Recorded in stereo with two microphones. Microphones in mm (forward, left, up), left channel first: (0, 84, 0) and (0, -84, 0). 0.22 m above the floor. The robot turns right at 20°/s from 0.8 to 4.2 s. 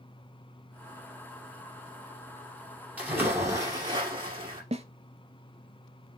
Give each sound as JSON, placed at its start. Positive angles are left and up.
{"t": 3.0, "sound": "a splash", "side_deg": -5, "distance_m": 2.5}
{"t": 4.7, "sound": "a snare drum", "side_deg": -40, "distance_m": 0.6}